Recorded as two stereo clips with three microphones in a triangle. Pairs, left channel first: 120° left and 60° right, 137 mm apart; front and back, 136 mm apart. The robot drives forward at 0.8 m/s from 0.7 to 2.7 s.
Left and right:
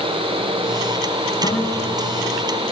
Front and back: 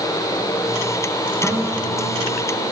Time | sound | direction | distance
1.4 | a guitar | 85° left | 4 m